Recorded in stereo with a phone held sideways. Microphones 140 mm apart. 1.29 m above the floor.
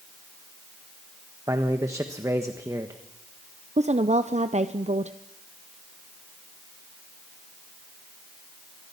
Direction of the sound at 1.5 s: 20° right (ahead or behind).